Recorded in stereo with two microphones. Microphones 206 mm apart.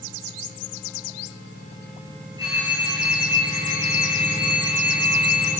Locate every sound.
2.4 s a phone ringing: 25° right (ahead or behind), 5.5 m